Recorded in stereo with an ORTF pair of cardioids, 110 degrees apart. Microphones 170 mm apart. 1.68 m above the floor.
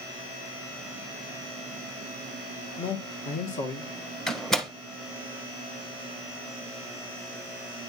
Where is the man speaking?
35° left, 1.9 m; by 3.9 s 50° left, 2.0 m.